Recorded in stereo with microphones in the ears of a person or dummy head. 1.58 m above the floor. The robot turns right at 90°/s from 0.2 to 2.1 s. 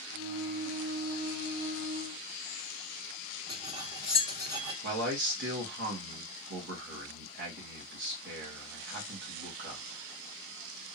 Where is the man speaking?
65° right (ahead or behind), 1.9 m.